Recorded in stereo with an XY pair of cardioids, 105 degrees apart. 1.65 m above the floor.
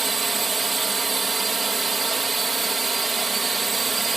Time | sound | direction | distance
0.0 | a drone | 25° right | ?